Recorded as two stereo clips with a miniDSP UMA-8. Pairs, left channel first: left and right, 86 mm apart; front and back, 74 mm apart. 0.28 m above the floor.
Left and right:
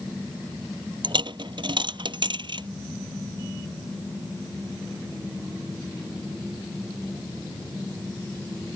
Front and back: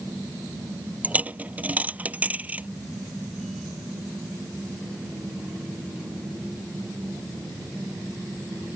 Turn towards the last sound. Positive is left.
turn(degrees=-110)